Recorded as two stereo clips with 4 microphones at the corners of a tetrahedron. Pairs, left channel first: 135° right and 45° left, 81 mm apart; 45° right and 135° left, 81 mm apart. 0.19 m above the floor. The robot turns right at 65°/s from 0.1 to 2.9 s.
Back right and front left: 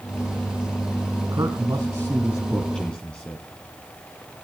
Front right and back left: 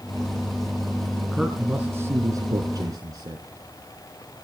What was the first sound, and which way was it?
A man speaking, 50° left.